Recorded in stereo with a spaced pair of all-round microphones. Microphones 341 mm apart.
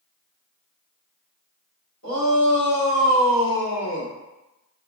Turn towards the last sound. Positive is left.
turn(degrees=25)  # may be behind; listen again after turning